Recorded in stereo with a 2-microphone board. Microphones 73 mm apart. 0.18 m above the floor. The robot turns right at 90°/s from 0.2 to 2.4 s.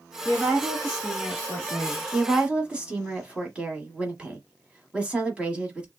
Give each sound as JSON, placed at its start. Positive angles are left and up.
{"t": 0.2, "sound": "a woman speaking", "side_deg": -10, "distance_m": 1.3}
{"t": 2.1, "sound": "a woman speaking", "side_deg": -10, "distance_m": 1.0}